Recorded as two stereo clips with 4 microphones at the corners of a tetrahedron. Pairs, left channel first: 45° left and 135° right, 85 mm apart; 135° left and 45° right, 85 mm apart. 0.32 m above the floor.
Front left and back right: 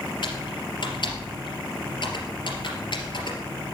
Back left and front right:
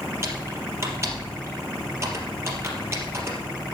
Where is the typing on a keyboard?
15° left, 3 m.